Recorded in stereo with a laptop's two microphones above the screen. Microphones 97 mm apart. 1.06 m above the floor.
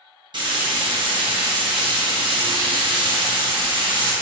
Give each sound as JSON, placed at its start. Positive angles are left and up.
{"t": 0.3, "sound": "frying", "side_deg": -55, "distance_m": 1.0}